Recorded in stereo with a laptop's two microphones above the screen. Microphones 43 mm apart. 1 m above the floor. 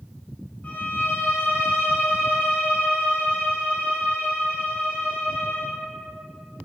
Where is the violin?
35° left (ahead or behind), 0.6 m.